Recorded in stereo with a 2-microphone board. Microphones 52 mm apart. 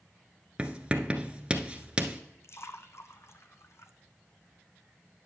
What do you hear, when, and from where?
0.6 s writing: 20° right (ahead or behind), 0.9 m
2.4 s a splash: 60° left (ahead or behind), 0.9 m